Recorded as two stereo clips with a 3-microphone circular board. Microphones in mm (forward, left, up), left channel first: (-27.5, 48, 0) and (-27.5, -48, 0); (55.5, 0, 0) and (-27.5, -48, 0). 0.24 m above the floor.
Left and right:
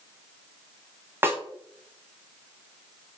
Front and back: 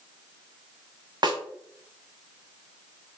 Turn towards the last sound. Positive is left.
turn(degrees=-150)